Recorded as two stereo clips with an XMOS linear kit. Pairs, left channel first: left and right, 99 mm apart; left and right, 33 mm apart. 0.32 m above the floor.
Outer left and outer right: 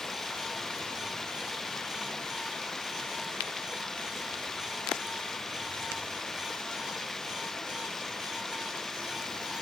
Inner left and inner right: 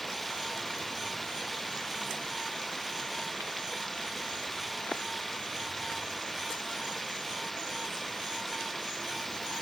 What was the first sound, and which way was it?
Running water, 5° left (ahead or behind).